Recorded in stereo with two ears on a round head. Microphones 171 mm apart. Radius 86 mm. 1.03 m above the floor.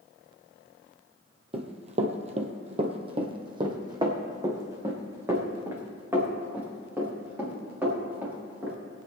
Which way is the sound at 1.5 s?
30° right (ahead or behind).